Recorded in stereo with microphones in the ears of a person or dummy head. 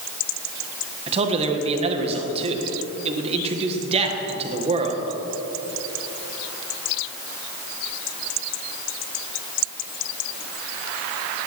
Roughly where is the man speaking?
Right.